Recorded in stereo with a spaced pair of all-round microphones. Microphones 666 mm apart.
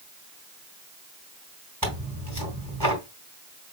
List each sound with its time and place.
1.8 s tearing paper: 30° right (ahead or behind), 3.5 m